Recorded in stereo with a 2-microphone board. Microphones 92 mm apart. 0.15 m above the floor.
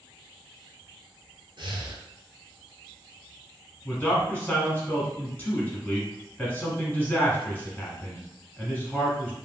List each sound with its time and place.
1.6 s breathing: 65° right (ahead or behind), 0.5 m
3.9 s a man speaking: 20° left (ahead or behind), 1.0 m